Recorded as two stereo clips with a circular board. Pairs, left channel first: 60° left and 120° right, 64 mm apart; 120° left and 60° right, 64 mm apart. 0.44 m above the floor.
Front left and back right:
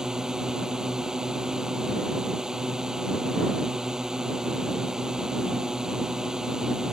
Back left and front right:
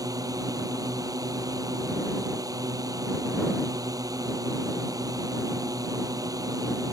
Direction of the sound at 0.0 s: 40° right.